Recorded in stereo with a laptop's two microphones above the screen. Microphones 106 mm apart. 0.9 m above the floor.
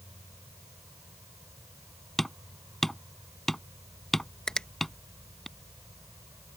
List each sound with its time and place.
0.0 s an insect: 30° right (ahead or behind)
2.2 s hammering: 5° left (ahead or behind)
4.5 s a finger snap: 5° left (ahead or behind)